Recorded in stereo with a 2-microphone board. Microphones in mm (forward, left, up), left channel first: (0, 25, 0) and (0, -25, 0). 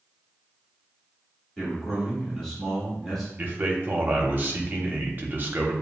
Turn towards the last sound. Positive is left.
turn(degrees=-40)  # may be behind; listen again after turning